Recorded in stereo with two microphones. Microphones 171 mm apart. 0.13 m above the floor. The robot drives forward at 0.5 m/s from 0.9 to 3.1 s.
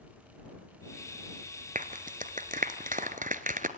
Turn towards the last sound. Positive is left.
turn(degrees=-50)  # may be behind; listen again after turning